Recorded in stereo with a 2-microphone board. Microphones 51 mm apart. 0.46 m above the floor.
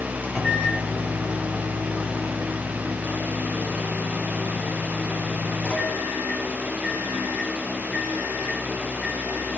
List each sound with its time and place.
0.2 s a microwave: 30° left (ahead or behind), 3 m